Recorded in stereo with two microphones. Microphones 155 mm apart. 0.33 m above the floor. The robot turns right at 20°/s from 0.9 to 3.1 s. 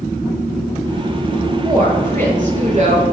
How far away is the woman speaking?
About 5 m.